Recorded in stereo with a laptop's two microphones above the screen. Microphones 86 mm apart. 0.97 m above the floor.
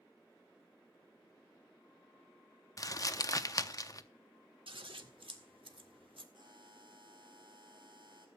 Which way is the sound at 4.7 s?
85° right.